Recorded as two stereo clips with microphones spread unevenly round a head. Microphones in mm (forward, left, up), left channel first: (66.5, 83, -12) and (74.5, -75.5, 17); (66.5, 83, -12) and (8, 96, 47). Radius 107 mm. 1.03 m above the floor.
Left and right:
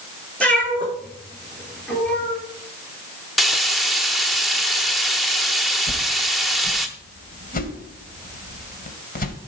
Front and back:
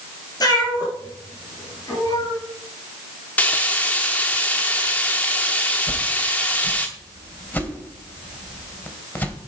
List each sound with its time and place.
0.4 s a cat meowing: 10° left, 5 m
3.4 s frying: 160° right, 0.6 m
5.9 s a whoosh: 60° left, 2.5 m